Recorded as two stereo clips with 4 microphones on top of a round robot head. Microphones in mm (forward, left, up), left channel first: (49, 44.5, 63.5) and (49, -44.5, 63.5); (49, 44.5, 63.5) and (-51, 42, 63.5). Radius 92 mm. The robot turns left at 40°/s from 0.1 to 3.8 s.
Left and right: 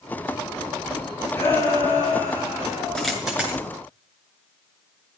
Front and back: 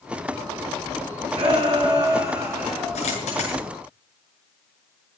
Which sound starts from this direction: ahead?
A dropped coin, at 3.0 s.